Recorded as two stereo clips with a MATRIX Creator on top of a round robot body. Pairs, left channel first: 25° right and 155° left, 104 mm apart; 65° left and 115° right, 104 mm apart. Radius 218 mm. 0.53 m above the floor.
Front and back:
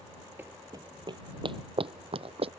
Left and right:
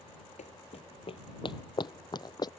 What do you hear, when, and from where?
0.4 s running footsteps: 85° left; by 2.5 s 120° left